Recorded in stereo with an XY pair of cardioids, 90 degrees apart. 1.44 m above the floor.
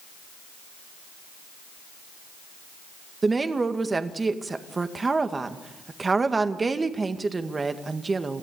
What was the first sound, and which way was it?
A woman speaking, 30° right.